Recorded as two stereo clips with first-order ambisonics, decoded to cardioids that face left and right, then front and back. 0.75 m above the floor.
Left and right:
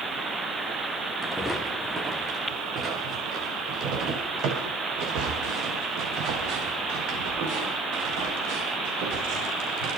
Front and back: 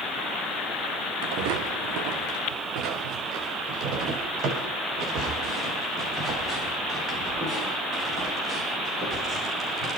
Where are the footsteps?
175° left, 3.5 m; by 9.9 s 115° right, 14.5 m.